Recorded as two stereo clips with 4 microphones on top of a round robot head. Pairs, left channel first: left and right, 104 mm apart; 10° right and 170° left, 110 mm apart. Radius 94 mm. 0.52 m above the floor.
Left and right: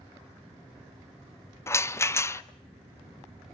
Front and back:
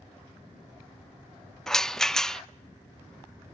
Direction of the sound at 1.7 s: 70° left.